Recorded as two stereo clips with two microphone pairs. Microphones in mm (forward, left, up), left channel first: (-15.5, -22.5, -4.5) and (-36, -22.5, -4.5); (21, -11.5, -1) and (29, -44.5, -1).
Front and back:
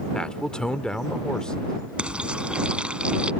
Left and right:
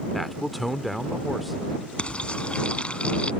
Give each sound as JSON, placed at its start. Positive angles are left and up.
{"t": 0.1, "sound": "a man speaking", "azimuth_deg": 15}
{"t": 2.0, "sound": "frying", "azimuth_deg": 160}